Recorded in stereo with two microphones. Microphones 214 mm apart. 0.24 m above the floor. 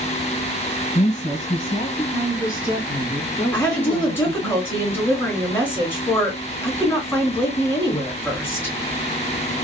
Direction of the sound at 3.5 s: 10° left (ahead or behind).